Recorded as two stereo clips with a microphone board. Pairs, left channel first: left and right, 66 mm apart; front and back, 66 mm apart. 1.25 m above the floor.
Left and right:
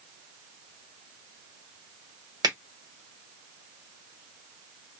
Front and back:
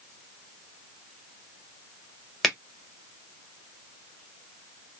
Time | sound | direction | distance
2.4 | a finger snap | 90° right | 1.2 m